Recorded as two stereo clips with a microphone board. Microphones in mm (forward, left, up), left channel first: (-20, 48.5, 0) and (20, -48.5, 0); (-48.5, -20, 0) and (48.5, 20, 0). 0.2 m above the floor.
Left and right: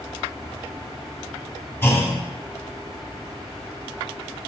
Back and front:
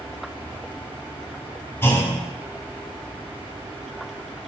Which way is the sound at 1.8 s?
160° left.